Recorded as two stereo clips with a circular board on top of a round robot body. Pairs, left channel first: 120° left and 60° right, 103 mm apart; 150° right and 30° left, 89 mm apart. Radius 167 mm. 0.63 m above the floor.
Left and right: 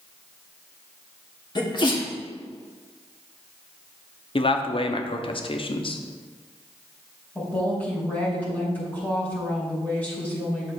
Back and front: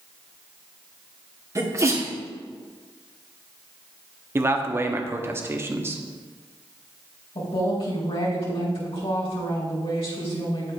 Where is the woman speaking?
165° right, 4 m.